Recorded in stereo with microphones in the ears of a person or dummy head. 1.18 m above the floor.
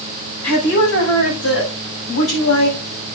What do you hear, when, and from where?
0.4 s a woman speaking: 75° left (ahead or behind), 7 m; by 2.8 s 70° left (ahead or behind), 5.5 m